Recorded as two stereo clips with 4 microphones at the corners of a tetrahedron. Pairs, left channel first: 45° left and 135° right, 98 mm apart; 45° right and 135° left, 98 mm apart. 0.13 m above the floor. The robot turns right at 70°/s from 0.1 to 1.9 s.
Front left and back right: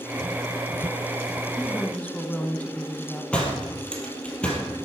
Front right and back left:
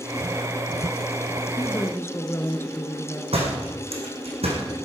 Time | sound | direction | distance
1.6 | a woman speaking | 40° right | 1.1 m
3.3 | a door slam | 125° left | 3 m